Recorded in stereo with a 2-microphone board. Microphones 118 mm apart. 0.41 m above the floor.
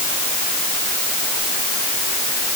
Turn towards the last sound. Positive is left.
No sound to turn to.